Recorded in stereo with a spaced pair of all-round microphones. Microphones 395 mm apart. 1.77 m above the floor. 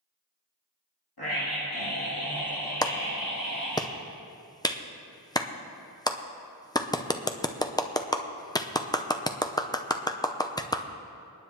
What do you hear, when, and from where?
1.2 s a scream: 75° left (ahead or behind), 2.5 m; by 3.8 s 45° left (ahead or behind), 3 m
2.8 s a clap: 10° left (ahead or behind), 0.6 m